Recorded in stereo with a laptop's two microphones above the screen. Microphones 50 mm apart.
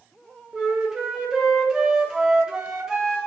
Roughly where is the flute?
Centre.